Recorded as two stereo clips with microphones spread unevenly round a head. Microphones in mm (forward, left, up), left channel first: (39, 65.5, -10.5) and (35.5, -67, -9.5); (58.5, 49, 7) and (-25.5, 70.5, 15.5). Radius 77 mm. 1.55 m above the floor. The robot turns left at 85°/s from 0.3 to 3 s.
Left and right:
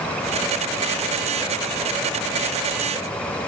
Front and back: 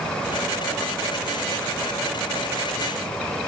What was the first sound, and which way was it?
Only background noise.